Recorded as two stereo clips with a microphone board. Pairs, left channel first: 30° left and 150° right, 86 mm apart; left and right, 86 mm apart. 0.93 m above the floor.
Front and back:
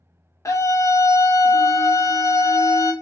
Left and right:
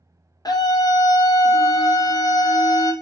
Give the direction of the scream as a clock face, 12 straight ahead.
10 o'clock.